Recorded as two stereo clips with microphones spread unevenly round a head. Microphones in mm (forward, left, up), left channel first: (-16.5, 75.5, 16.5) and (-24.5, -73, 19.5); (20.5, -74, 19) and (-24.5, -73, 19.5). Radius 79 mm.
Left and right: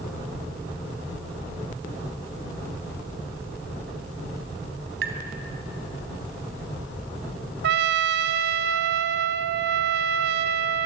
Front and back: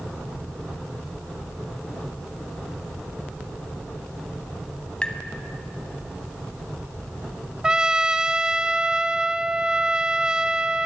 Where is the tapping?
70° right, 3 m.